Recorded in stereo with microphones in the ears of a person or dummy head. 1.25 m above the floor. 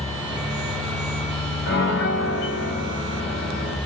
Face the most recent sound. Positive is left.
turn(degrees=75)  # may be behind; listen again after turning